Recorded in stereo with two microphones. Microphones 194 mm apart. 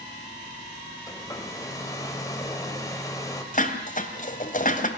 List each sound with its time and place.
1.1 s a hair dryer: 15° left (ahead or behind), 3 m
3.5 s dishes clattering: 45° left (ahead or behind), 2.5 m